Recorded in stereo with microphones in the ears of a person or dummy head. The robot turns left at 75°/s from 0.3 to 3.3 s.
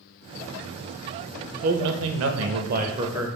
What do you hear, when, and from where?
1.6 s a man speaking: 45° right, 0.6 m; by 3.4 s 175° right, 0.6 m